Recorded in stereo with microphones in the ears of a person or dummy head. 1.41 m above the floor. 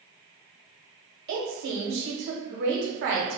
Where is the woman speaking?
60° right (ahead or behind), 0.9 m.